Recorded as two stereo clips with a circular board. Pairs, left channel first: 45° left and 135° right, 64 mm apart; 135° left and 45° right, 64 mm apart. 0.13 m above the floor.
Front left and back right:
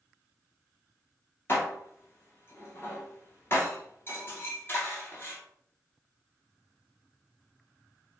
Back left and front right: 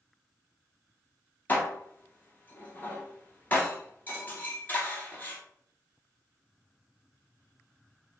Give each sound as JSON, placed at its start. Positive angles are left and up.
{"t": 1.5, "sound": "dishes clattering", "azimuth_deg": 80, "distance_m": 1.2}